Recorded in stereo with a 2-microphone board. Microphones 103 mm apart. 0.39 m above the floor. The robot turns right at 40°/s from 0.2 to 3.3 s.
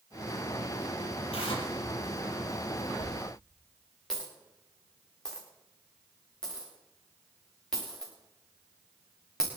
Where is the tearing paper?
70° left (ahead or behind), 5 m; by 1.7 s 55° left (ahead or behind), 5 m.